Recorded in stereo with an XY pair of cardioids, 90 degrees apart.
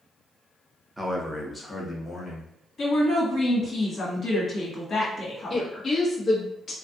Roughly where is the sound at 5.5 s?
Ahead left.